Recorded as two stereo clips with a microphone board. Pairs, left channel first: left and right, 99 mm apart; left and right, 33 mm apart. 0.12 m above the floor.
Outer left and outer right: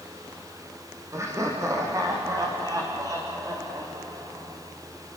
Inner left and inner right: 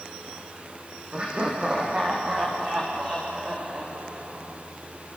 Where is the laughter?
30° right (ahead or behind), 6.5 m; by 4.6 s 40° right (ahead or behind), 10 m.